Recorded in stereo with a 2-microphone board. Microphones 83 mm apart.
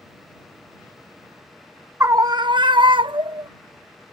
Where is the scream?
30° right (ahead or behind); by 3.5 s 80° right.